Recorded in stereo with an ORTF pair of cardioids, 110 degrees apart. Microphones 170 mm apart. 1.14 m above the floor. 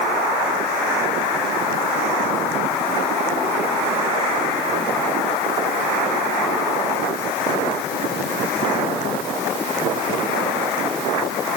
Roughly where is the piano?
No piano in this recording.